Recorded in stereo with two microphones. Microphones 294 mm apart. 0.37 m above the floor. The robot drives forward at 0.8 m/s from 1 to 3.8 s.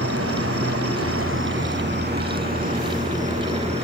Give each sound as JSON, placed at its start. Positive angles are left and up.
{"t": 0.0, "sound": "an insect", "side_deg": -50, "distance_m": 1.7}